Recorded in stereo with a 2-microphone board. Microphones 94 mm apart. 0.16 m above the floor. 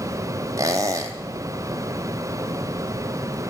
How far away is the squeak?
About 0.7 m.